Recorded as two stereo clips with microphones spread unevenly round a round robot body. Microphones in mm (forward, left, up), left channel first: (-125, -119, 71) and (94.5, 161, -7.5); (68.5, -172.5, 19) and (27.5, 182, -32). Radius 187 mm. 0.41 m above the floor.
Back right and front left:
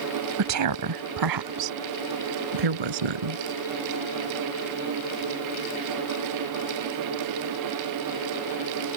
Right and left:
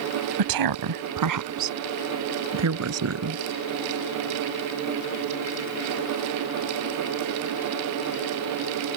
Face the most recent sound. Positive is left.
turn(degrees=45)